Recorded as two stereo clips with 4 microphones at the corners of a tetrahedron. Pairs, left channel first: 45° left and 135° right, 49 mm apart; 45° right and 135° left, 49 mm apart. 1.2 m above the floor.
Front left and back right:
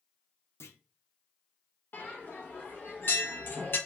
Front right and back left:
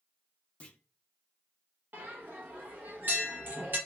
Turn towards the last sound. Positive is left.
turn(degrees=90)